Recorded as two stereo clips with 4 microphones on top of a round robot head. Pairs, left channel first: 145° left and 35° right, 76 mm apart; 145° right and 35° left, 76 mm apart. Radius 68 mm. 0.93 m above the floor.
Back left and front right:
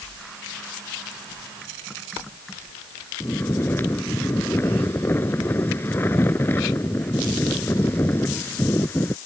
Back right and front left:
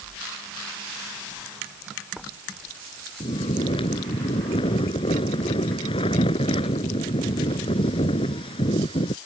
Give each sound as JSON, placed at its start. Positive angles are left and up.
{"t": 3.2, "sound": "snoring", "azimuth_deg": -150}